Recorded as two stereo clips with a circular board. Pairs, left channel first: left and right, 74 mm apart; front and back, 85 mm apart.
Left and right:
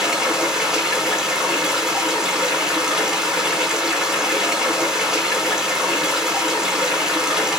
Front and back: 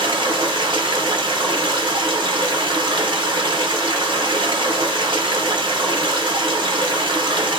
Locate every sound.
0.0 s running water: 170° right, 1.0 m